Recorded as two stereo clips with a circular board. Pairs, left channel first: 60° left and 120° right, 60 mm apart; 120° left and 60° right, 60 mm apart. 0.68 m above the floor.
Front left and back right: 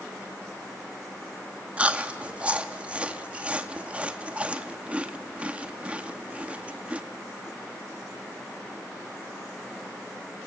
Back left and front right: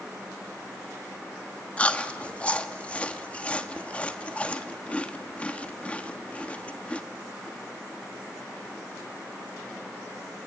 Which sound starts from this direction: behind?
Chewing, at 1.8 s.